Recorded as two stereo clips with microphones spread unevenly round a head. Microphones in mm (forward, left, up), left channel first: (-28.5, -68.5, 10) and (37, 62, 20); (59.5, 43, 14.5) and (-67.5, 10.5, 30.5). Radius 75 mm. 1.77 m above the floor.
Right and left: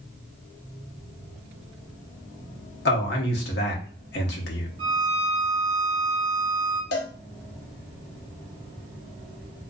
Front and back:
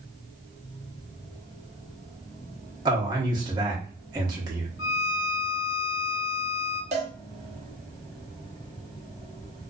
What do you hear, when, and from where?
2.9 s a man speaking: 105° right, 0.8 m
4.8 s a violin: 10° left, 0.8 m
6.9 s a cowbell: 125° right, 0.6 m